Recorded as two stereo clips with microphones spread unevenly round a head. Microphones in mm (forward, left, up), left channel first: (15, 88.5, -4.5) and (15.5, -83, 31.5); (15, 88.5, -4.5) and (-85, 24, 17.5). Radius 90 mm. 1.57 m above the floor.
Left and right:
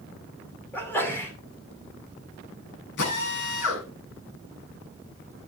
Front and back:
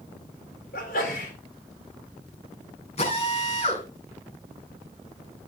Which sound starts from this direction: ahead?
A sneeze, at 0.7 s.